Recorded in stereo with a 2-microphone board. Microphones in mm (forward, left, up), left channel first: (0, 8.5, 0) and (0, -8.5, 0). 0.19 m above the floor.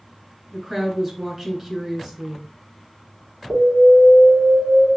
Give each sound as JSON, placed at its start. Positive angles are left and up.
{"t": 0.5, "sound": "a woman speaking", "side_deg": -25, "distance_m": 2.0}
{"t": 3.5, "sound": "an alarm", "side_deg": -45, "distance_m": 3.0}